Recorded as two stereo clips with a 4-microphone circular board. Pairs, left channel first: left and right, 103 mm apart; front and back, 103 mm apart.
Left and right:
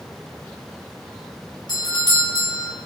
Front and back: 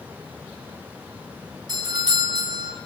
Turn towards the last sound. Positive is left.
turn(degrees=135)